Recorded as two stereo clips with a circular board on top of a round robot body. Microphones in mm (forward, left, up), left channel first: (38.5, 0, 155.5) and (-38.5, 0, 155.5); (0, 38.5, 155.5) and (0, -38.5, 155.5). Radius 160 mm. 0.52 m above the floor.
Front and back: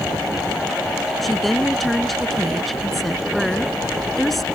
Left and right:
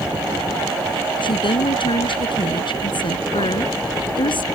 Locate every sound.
1.2 s a woman speaking: 90° left